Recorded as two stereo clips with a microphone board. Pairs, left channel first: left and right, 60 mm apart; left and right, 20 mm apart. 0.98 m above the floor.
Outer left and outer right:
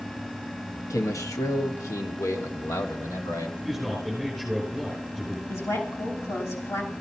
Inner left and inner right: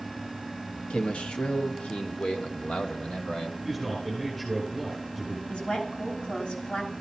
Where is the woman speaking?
55° left (ahead or behind), 6 m.